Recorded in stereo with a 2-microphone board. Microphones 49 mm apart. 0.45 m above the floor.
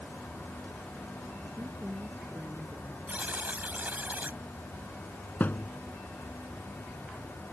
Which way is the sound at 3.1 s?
35° right (ahead or behind).